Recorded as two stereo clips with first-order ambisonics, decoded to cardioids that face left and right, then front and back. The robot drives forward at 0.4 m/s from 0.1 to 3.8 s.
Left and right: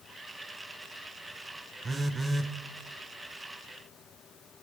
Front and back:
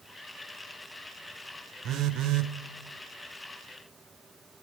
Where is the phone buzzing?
155° right, 0.5 m; by 2.5 s 165° right, 0.7 m.